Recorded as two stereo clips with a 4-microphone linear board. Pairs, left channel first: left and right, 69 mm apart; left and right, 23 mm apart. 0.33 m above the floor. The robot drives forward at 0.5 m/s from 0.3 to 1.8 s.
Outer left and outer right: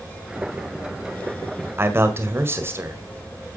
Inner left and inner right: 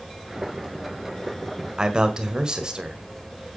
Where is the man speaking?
35° right (ahead or behind), 1.7 m.